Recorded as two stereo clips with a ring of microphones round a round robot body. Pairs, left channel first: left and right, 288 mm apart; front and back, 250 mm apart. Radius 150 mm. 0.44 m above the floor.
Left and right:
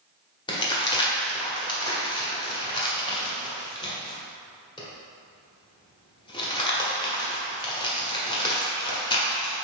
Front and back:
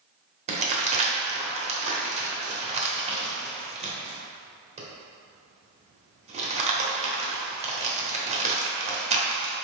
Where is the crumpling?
150° left, 1.1 m.